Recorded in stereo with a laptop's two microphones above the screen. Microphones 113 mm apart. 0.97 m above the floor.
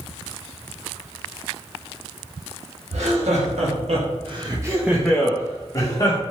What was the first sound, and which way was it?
Laughter, 85° right.